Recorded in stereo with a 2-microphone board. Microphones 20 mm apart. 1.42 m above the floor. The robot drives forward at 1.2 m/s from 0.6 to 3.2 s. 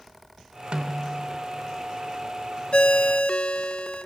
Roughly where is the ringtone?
Left.